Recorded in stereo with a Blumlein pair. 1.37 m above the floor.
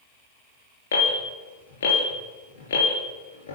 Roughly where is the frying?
I don't hear frying.